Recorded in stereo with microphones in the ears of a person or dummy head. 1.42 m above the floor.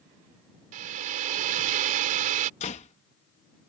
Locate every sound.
0.7 s a hair dryer: 45° right (ahead or behind)
2.6 s a door slam: 35° left (ahead or behind)